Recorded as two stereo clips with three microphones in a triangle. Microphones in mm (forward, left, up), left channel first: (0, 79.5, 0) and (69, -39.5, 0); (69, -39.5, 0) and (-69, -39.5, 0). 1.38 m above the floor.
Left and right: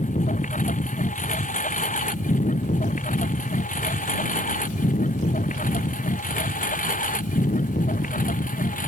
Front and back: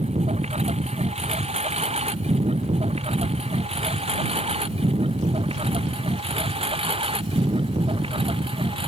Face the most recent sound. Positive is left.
turn(degrees=130)